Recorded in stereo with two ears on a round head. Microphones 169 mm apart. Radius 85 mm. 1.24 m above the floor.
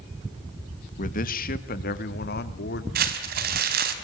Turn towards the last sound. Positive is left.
turn(degrees=-50)  # may be behind; listen again after turning